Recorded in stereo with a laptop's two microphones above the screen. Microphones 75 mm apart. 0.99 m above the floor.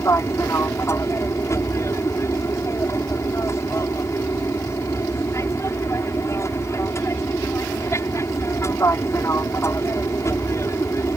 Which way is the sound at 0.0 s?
40° left (ahead or behind).